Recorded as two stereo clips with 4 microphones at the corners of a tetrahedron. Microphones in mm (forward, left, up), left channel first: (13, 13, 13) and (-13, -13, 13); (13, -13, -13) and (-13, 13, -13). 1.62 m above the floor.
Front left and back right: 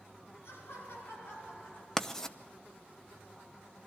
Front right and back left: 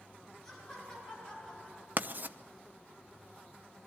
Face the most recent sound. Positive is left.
turn(degrees=115)